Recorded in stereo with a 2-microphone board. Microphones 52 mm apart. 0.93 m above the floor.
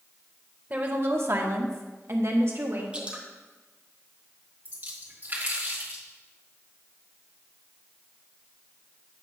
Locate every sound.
0.7 s a woman speaking: 35° right (ahead or behind), 0.7 m; by 2.8 s 55° right (ahead or behind), 1.5 m
2.9 s dripping: 25° right (ahead or behind), 1.1 m
4.7 s a splash: 40° right (ahead or behind), 1.8 m